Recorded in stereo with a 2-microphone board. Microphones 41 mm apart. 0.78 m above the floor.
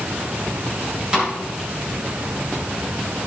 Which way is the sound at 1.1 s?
20° right (ahead or behind).